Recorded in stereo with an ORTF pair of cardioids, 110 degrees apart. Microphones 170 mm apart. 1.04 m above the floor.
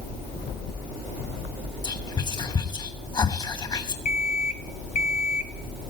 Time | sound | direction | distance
1.8 | whispering | 25° left | 1.2 m
4.0 | an alarm clock | 50° left | 1.6 m